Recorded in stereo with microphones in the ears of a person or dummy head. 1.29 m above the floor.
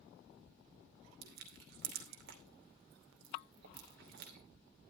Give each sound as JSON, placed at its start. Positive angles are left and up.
{"t": 1.2, "sound": "crushing", "side_deg": -70, "distance_m": 2.5}